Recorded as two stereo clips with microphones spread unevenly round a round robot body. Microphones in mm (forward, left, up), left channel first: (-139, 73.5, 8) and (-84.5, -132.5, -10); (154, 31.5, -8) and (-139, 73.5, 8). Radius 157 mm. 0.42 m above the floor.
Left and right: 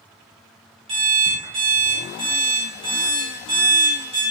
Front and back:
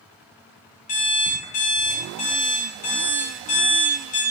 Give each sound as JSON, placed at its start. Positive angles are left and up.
{"t": 0.9, "sound": "an alarm clock", "azimuth_deg": -45, "distance_m": 0.6}